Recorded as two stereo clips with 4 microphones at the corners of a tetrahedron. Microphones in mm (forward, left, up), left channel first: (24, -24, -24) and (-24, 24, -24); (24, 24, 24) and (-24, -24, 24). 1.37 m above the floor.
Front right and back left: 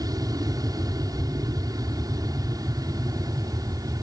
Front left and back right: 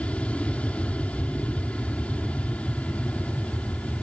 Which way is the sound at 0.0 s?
115° left.